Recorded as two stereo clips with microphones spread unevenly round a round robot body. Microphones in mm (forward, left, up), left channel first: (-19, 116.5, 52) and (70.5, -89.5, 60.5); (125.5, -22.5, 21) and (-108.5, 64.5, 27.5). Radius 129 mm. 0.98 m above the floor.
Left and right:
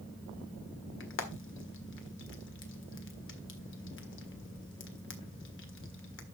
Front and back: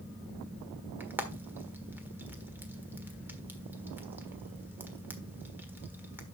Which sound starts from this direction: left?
Frying, at 1.0 s.